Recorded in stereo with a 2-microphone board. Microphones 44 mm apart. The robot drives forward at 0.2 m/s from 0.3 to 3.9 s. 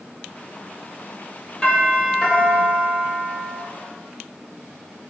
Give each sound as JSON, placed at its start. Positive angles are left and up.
{"t": 1.6, "sound": "a doorbell", "side_deg": 20, "distance_m": 3.5}